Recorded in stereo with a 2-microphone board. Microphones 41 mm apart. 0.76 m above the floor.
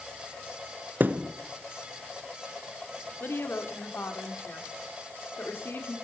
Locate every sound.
1.0 s a thud: 45° right (ahead or behind), 1.0 m
3.2 s a woman speaking: 60° left (ahead or behind), 2.5 m